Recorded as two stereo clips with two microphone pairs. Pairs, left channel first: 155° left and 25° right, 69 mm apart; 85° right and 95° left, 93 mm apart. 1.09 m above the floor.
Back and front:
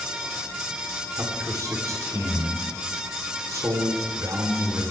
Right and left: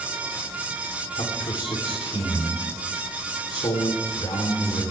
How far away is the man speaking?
About 3.5 m.